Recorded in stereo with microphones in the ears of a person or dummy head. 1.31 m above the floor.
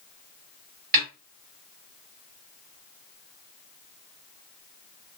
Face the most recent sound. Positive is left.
turn(degrees=-50)  # may be behind; listen again after turning